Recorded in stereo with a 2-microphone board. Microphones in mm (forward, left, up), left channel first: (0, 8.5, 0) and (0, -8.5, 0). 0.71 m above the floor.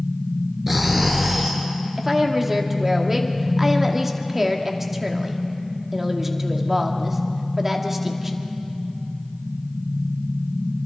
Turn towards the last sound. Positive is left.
turn(degrees=-20)  # may be behind; listen again after turning